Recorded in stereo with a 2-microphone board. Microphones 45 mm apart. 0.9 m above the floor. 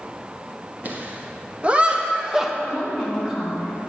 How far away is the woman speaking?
About 3 m.